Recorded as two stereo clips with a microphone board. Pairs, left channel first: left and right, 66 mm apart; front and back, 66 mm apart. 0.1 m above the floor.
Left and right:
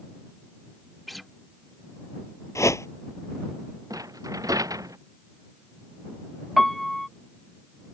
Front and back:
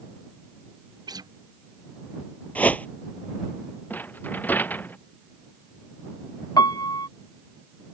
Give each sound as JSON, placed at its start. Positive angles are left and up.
{"t": 1.1, "sound": "a guitar", "azimuth_deg": 180}
{"t": 2.5, "sound": "a whoosh", "azimuth_deg": 65}
{"t": 3.9, "sound": "a rattle", "azimuth_deg": -60}
{"t": 6.6, "sound": "a piano", "azimuth_deg": 5}